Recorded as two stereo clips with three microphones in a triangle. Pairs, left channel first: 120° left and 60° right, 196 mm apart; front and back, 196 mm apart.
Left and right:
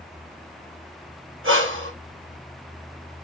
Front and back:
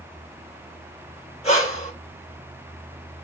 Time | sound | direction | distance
1.4 | breathing | 55° right | 1.9 m